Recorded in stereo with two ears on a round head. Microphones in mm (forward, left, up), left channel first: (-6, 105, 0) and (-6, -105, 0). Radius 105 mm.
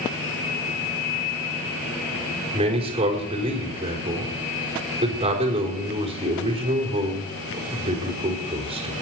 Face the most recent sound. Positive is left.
turn(degrees=-25)  # may be behind; listen again after turning